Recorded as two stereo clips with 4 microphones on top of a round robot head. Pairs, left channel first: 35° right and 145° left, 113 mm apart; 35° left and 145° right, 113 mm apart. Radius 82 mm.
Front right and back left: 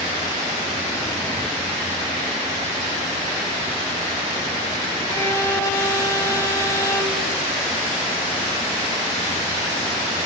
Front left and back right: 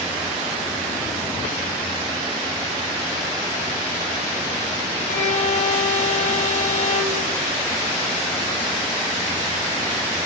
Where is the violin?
35° left, 2.5 m.